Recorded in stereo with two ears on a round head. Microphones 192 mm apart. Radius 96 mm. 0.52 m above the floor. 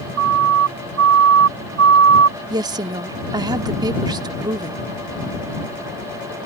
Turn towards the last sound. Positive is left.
turn(degrees=-20)  # may be behind; listen again after turning